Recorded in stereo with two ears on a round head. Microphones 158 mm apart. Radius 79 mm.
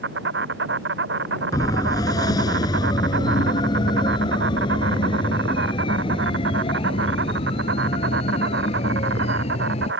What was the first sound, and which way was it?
An insect, 70° right (ahead or behind).